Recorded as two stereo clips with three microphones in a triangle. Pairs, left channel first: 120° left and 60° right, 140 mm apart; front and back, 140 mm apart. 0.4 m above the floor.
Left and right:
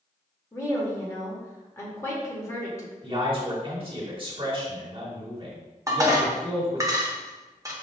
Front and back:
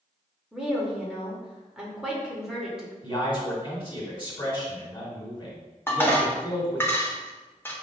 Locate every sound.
0.5 s a woman speaking: 105° left, 1.1 m
3.0 s a man speaking: 40° right, 1.5 m
5.9 s dishes clattering: 50° right, 0.7 m